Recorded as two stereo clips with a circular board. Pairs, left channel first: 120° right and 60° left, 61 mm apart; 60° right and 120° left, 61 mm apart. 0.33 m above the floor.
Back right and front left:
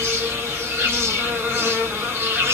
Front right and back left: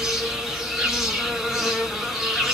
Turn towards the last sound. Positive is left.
turn(degrees=35)